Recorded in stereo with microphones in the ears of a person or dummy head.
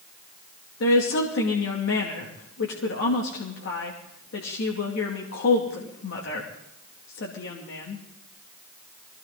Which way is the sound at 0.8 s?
65° left (ahead or behind).